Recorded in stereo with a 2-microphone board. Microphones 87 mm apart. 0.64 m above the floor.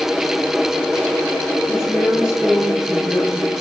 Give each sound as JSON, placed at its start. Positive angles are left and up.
{"t": 1.7, "sound": "a woman speaking", "side_deg": -5, "distance_m": 10.0}